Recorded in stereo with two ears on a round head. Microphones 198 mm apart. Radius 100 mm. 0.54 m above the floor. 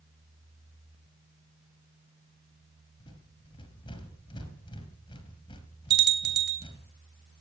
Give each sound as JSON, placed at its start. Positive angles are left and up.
{"t": 3.0, "sound": "a rattle", "side_deg": 20, "distance_m": 3.0}
{"t": 5.9, "sound": "a bell", "side_deg": -45, "distance_m": 2.0}